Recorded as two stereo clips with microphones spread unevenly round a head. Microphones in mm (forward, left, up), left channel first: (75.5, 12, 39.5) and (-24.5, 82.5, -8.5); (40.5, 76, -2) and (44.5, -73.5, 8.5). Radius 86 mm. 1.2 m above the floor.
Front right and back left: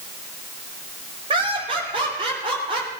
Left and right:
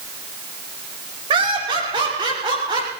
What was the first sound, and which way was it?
Laughter, 155° right.